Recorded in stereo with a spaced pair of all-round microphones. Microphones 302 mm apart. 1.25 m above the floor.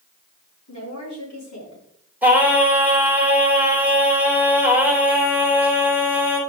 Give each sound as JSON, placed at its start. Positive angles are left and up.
{"t": 0.7, "sound": "a woman speaking", "side_deg": 60, "distance_m": 5.0}
{"t": 2.2, "sound": "singing", "side_deg": -5, "distance_m": 3.0}